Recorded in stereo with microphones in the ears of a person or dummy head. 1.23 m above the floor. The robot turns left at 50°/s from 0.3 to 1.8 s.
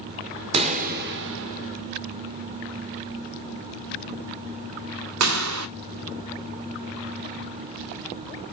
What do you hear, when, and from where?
0.5 s a pop: 35° right (ahead or behind), 0.9 m; by 5.7 s 85° right, 0.9 m